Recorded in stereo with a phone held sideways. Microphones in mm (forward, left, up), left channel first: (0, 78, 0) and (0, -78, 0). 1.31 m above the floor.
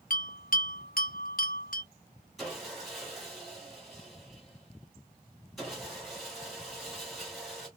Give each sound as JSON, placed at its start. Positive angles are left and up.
{"t": 0.1, "sound": "a bell", "side_deg": 60, "distance_m": 1.0}
{"t": 2.4, "sound": "sawing", "side_deg": 0, "distance_m": 2.5}